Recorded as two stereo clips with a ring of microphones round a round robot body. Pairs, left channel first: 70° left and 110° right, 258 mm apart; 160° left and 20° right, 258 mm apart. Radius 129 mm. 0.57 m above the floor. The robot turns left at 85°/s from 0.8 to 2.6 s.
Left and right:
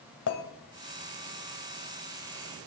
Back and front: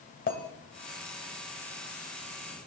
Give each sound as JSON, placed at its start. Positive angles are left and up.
{"t": 0.3, "sound": "a clink", "azimuth_deg": 100, "distance_m": 2.0}